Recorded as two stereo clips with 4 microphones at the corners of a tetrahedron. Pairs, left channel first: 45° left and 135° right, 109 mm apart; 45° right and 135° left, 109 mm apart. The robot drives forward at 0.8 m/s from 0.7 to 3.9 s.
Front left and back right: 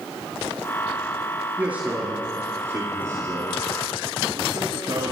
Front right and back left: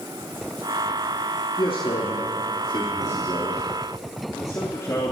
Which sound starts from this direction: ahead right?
A man speaking, at 1.6 s.